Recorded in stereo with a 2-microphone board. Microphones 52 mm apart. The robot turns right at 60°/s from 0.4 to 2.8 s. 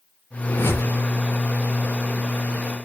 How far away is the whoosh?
About 5 m.